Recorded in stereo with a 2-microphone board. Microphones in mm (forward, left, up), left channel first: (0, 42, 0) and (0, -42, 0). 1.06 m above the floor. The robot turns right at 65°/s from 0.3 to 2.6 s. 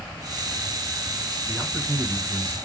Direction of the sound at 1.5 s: 170° left.